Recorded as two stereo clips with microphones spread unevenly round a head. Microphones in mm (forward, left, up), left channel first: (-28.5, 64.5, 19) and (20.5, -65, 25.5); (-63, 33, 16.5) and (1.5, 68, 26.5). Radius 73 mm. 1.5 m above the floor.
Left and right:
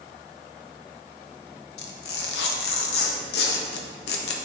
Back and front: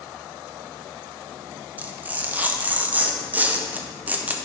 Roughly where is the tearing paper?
Left.